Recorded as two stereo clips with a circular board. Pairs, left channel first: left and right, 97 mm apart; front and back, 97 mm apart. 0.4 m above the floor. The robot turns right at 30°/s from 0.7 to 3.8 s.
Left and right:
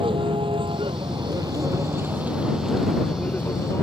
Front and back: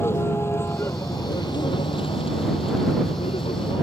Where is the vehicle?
65° right; by 3.8 s 30° left.